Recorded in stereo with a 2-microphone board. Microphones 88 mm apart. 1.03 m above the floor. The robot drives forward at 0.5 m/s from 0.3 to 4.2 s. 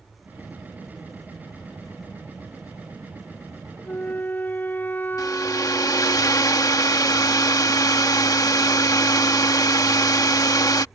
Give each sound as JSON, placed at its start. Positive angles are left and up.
{"t": 3.9, "sound": "a flute", "side_deg": 20}
{"t": 5.2, "sound": "a hair dryer", "side_deg": 45}